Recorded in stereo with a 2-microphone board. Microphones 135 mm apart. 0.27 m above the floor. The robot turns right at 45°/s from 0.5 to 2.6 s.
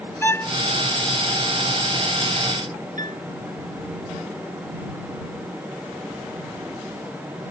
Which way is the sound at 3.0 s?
75° right (ahead or behind).